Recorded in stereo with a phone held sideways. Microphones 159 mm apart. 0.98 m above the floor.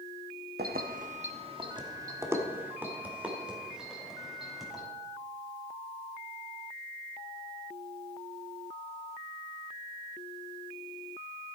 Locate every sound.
0.6 s keys jangling: 75° right (ahead or behind), 0.8 m; by 4.8 s centre (ahead or behind), 3.5 m